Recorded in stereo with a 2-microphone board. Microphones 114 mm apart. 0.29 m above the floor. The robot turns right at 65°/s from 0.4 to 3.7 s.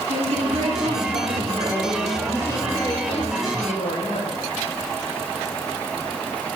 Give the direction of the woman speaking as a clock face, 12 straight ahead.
4 o'clock.